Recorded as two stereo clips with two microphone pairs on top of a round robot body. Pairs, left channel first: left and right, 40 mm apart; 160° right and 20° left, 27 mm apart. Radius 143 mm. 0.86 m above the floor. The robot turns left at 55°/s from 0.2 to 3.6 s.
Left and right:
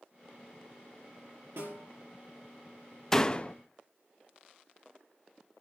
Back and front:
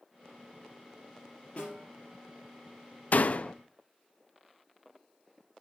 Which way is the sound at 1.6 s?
110° right.